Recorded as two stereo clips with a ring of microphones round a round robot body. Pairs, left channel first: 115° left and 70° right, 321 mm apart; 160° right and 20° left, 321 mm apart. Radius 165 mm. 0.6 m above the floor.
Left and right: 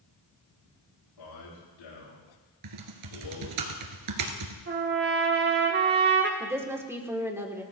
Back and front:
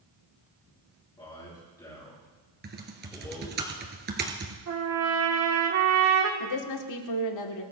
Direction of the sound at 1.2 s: 125° left.